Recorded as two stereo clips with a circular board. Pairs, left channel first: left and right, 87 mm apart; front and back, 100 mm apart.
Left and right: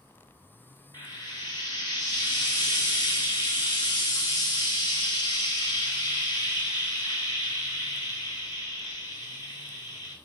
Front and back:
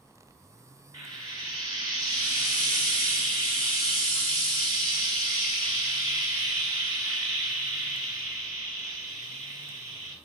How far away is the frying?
About 1.8 m.